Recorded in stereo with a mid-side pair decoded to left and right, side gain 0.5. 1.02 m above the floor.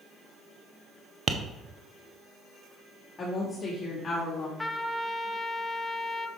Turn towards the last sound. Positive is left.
turn(degrees=10)